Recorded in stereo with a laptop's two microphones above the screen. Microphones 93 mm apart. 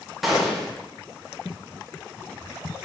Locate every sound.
0.2 s a gunshot: centre (ahead or behind), 0.7 m